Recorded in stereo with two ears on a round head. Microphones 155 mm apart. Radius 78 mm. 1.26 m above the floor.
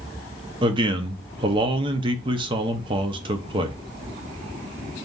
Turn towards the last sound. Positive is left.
turn(degrees=-30)  # may be behind; listen again after turning